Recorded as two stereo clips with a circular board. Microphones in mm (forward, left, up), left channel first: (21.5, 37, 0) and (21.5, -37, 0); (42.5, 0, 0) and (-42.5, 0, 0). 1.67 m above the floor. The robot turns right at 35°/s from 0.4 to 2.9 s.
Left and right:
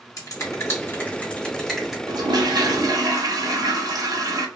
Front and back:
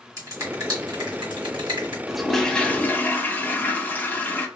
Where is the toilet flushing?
95° right, 0.5 m; by 4.5 s 65° right, 0.5 m.